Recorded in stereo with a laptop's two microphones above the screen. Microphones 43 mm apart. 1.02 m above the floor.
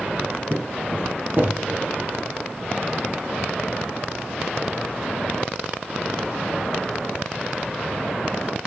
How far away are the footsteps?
About 2 m.